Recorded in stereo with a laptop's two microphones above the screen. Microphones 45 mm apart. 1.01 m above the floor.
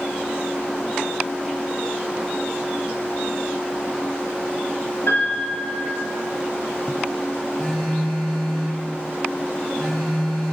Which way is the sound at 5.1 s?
80° left.